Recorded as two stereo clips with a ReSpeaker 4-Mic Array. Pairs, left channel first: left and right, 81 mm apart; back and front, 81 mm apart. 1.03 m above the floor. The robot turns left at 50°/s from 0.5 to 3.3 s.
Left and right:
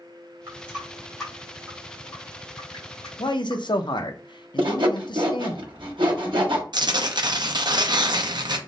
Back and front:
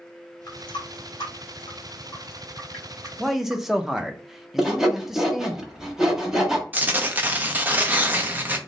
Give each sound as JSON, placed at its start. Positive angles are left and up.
{"t": 0.5, "sound": "a running tap", "azimuth_deg": -150, "distance_m": 1.9}
{"t": 3.2, "sound": "a man speaking", "azimuth_deg": 90, "distance_m": 0.5}
{"t": 4.6, "sound": "sawing", "azimuth_deg": -85, "distance_m": 0.9}
{"t": 6.7, "sound": "tearing paper", "azimuth_deg": -65, "distance_m": 0.5}